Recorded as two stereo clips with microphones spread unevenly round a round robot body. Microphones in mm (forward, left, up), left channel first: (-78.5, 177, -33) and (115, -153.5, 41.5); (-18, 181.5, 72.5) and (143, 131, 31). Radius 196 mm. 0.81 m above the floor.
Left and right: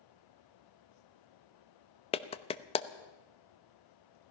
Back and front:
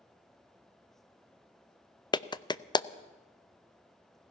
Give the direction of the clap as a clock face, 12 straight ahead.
9 o'clock.